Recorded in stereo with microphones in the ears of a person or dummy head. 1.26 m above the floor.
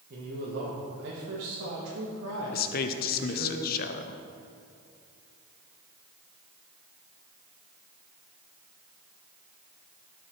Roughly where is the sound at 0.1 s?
Right.